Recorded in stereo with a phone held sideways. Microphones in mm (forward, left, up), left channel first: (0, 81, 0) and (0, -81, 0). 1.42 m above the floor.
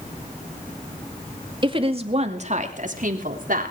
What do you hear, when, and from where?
1.6 s a woman speaking: 30° right (ahead or behind), 2 m; by 3.7 s 65° right (ahead or behind), 3.5 m